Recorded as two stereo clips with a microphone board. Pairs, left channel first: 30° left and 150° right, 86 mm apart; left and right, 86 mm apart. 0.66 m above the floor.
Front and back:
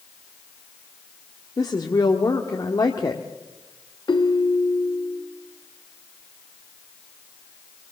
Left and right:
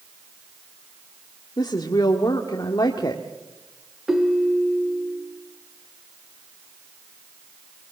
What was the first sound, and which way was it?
A woman speaking, 60° left.